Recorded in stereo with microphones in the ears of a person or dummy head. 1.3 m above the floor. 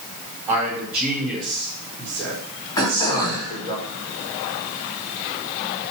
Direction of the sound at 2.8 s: 25° left (ahead or behind).